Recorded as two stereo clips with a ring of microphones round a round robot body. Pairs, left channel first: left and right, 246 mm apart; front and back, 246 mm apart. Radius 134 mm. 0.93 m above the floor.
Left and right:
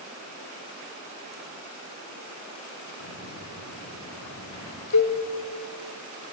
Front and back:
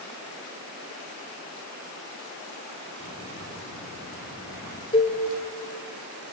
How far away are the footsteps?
About 8 m.